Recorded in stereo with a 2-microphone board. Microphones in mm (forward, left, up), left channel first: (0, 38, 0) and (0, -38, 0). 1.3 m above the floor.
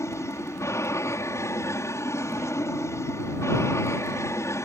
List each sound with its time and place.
0.0 s an aircraft: 40° left (ahead or behind)